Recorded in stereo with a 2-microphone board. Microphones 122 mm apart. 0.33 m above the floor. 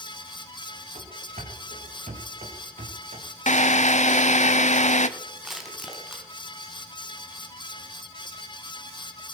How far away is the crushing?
About 3 m.